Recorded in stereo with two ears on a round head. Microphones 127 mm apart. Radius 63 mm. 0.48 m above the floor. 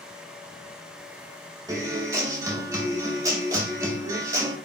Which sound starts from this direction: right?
A guitar, at 1.7 s.